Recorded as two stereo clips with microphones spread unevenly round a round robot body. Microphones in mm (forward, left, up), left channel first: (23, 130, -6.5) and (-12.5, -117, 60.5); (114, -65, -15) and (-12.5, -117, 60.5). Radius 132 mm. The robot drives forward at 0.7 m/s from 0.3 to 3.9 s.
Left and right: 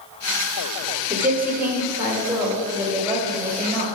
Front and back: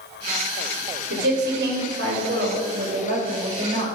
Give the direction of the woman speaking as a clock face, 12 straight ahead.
6 o'clock.